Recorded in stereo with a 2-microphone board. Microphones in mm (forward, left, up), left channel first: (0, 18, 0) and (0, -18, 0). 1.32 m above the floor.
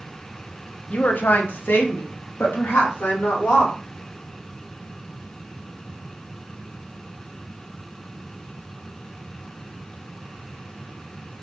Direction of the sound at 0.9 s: 40° left (ahead or behind).